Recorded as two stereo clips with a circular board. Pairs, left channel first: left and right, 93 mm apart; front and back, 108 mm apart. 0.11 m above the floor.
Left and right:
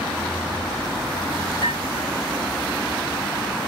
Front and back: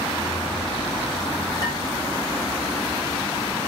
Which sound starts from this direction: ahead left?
Dishes clattering, at 1.6 s.